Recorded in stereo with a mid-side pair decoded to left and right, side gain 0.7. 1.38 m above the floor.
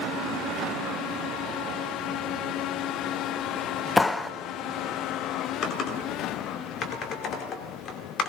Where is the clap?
15° left, 0.6 m.